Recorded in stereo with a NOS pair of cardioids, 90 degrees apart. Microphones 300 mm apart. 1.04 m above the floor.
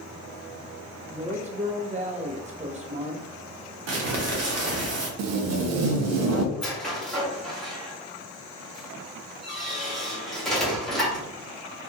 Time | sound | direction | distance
1.1 | a woman speaking | 25° right | 0.8 m
3.9 | crumpling | 55° right | 0.9 m
5.2 | tape being pulled | 65° right | 0.5 m
6.5 | a squeak | straight ahead | 1.0 m